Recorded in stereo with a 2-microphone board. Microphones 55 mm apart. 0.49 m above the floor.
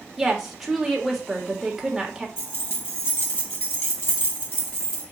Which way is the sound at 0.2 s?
5° right (ahead or behind).